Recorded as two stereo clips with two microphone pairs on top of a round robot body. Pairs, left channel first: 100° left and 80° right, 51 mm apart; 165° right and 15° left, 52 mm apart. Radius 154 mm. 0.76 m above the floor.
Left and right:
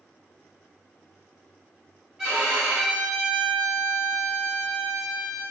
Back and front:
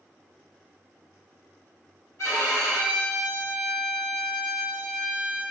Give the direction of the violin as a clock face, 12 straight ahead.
5 o'clock.